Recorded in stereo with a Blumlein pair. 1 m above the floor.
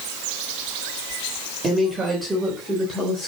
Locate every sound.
1.6 s a woman speaking: 15° right, 3.5 m; by 3.3 s 15° left, 3.5 m